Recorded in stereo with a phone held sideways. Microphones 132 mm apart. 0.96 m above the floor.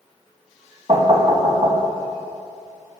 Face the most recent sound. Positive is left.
turn(degrees=-45)  # may be behind; listen again after turning